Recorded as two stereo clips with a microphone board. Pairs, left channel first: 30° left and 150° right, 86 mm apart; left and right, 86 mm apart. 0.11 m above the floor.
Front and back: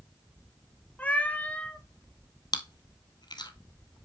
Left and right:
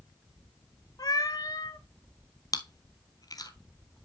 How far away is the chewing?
About 0.8 m.